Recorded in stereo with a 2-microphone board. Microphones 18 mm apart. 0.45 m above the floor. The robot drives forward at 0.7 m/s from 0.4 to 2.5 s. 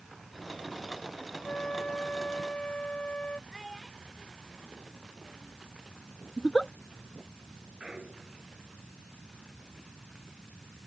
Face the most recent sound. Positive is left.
turn(degrees=-55)  # may be behind; listen again after turning